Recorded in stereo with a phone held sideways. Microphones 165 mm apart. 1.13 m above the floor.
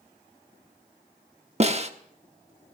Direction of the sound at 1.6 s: 40° right (ahead or behind).